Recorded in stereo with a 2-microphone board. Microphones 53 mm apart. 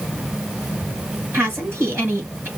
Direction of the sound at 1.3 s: 40° right (ahead or behind).